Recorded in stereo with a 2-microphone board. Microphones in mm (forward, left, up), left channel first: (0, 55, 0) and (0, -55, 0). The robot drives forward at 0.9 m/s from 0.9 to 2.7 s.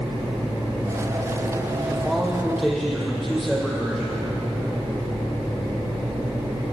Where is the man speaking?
Centre (ahead or behind), 5.5 m.